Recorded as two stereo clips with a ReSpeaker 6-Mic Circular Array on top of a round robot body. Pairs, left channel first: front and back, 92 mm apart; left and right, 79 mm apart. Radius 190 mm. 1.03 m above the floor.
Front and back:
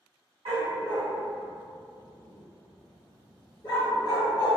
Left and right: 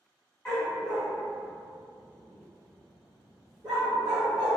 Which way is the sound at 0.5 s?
170° left.